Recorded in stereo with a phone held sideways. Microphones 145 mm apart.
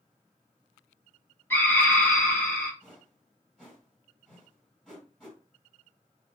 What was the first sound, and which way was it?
A scream, 15° left (ahead or behind).